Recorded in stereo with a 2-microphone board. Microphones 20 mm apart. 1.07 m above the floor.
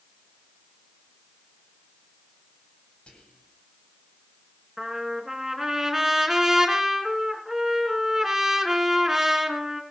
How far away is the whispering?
About 8 m.